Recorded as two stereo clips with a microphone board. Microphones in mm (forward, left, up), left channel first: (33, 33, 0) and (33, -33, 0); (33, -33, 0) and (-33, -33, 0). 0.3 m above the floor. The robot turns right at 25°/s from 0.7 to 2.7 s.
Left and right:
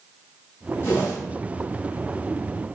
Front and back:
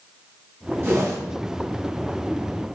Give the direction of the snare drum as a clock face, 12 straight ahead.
I don't hear a snare drum.